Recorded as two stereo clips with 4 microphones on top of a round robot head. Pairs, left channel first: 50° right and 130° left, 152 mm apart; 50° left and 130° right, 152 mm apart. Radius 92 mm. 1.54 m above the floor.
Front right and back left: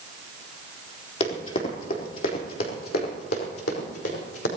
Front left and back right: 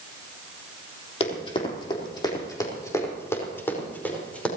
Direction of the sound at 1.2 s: Straight ahead.